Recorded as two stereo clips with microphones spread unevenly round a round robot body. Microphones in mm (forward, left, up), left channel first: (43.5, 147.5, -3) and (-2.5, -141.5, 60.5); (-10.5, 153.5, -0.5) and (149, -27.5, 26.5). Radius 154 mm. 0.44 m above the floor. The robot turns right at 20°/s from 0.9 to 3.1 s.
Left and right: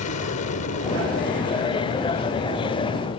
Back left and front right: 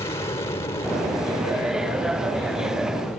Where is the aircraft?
70° left; by 3.2 s 115° left.